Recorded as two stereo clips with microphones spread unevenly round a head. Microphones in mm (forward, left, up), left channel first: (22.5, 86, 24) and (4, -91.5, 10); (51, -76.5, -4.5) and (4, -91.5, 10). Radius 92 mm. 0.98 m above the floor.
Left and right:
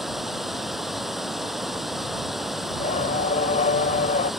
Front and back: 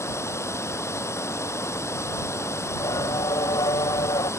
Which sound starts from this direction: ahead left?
Singing, at 2.7 s.